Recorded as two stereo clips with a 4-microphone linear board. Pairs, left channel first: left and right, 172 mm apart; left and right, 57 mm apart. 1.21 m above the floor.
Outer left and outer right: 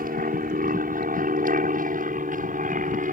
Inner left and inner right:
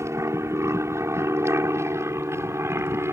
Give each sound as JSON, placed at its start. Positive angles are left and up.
{"t": 0.0, "sound": "an aircraft", "side_deg": -55}